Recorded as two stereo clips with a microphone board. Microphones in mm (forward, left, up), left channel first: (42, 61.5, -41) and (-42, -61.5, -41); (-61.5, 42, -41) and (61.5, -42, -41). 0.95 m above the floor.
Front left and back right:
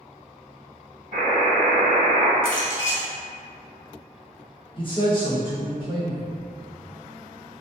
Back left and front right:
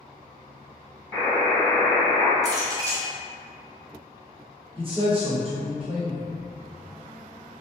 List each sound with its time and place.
1.1 s a buzzer: 95° right, 1.6 m
2.4 s a clink: 30° left, 0.8 m
4.8 s a man speaking: 10° left, 1.1 m